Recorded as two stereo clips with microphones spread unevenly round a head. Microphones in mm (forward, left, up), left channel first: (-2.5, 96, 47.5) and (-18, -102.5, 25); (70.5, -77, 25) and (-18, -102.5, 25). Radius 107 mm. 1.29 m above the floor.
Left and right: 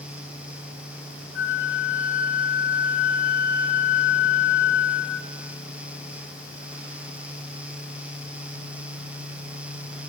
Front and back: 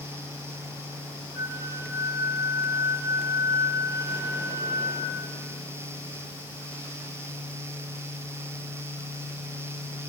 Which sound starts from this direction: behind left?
A flute, at 1.4 s.